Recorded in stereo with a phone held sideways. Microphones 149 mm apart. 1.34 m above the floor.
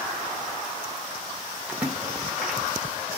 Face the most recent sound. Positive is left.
turn(degrees=-10)  # may be behind; listen again after turning